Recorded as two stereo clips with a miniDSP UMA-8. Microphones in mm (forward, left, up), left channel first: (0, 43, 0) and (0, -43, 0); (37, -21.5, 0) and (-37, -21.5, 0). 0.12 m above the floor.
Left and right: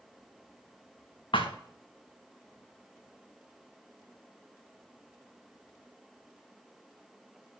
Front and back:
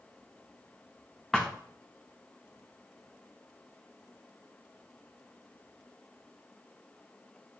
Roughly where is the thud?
Left.